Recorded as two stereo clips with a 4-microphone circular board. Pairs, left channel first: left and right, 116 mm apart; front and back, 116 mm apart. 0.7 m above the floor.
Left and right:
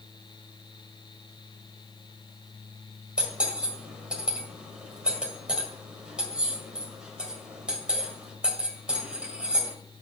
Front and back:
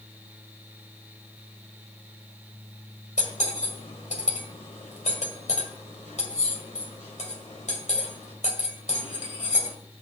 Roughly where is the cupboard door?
No cupboard door in this recording.